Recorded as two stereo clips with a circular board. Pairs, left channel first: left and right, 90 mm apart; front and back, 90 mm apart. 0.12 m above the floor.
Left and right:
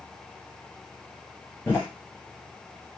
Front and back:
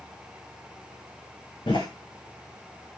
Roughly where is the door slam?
Ahead left.